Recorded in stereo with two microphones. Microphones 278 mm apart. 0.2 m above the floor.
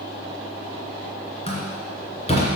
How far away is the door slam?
About 2.5 m.